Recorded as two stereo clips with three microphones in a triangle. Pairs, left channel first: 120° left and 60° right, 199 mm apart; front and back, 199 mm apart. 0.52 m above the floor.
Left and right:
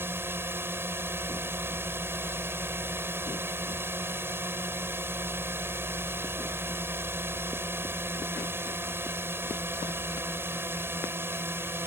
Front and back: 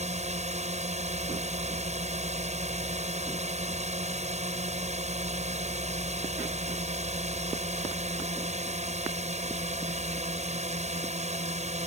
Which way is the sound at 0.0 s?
135° right.